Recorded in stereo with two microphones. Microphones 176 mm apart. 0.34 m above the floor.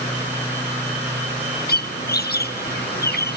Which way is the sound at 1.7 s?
65° left (ahead or behind).